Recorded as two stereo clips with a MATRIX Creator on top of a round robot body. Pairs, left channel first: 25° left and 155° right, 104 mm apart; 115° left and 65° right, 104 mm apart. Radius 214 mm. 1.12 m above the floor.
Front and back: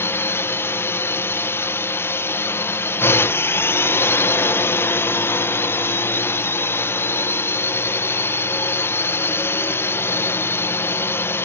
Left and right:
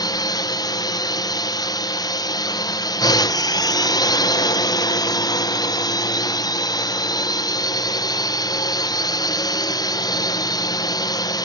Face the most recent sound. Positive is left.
turn(degrees=80)